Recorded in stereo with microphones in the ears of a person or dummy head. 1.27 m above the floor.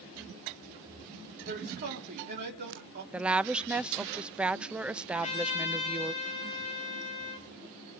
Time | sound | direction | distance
1.5 | a man speaking | 45° right (ahead or behind) | 4 m
3.1 | a woman speaking | 5° right (ahead or behind) | 0.6 m
5.1 | a trumpet | 30° left (ahead or behind) | 3.5 m